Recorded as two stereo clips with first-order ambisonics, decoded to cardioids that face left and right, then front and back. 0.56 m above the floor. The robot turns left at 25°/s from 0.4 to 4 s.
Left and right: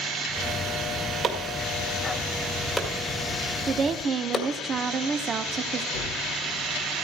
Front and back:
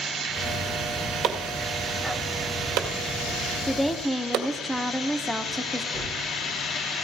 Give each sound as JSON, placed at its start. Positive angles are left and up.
{"t": 1.2, "sound": "chopping", "azimuth_deg": -140, "distance_m": 1.9}
{"t": 3.7, "sound": "a woman speaking", "azimuth_deg": -75, "distance_m": 0.7}
{"t": 5.9, "sound": "a gunshot", "azimuth_deg": 85, "distance_m": 2.0}